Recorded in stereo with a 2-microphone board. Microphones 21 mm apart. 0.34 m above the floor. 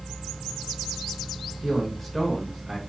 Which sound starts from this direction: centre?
A man speaking, at 1.6 s.